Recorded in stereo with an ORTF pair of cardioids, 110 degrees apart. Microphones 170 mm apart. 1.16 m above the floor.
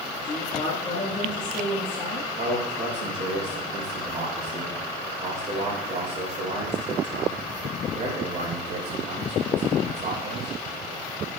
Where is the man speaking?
45° right, 3.5 m.